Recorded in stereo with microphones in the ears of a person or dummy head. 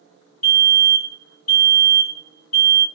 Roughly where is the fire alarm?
Left.